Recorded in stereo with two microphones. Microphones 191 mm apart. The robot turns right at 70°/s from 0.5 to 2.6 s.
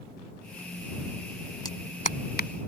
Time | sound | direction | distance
1.6 | a clap | 20° left (ahead or behind) | ?